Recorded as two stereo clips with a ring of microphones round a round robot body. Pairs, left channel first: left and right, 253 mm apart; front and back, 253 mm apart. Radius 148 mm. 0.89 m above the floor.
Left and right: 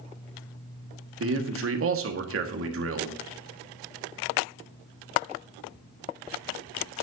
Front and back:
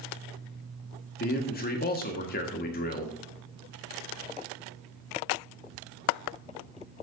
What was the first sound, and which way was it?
A man speaking, 55° right.